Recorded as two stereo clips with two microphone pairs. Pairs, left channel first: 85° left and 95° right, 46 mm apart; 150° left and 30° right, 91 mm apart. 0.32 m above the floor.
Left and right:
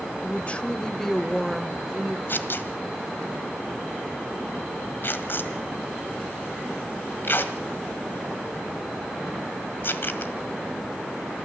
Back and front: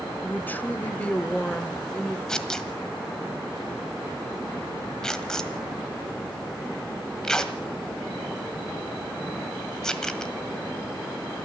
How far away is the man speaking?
About 1.1 m.